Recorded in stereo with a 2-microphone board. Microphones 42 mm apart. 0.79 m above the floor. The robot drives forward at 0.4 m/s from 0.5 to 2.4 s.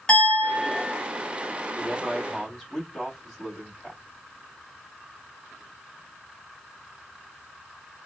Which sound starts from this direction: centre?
A man speaking, at 1.8 s.